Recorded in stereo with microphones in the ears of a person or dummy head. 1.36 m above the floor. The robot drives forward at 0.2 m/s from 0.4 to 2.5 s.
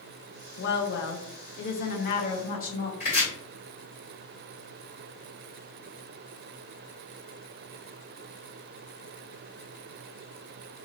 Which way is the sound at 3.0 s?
40° left (ahead or behind).